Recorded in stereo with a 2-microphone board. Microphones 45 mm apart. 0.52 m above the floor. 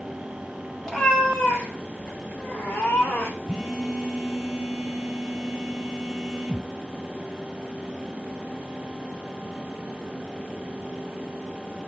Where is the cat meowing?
15° left (ahead or behind), 2 m; by 3.4 s 60° left (ahead or behind), 2 m.